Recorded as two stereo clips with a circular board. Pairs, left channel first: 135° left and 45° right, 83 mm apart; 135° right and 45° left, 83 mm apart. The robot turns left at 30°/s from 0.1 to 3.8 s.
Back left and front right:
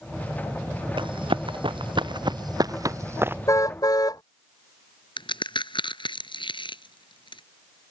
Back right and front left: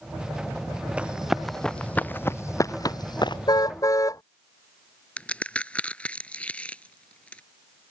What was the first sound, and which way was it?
Running footsteps, 30° right.